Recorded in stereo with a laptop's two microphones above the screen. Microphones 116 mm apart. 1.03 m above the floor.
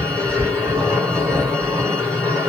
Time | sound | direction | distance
0.0 | a machine running | 10° left (ahead or behind) | 1.8 m